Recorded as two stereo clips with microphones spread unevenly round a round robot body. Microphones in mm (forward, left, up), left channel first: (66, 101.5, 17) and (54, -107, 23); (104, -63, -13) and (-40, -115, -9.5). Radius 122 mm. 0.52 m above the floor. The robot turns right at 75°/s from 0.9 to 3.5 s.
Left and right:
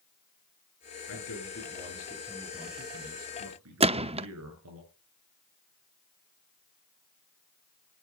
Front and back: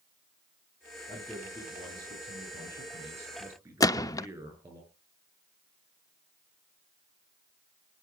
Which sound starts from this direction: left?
A man speaking, at 1.1 s.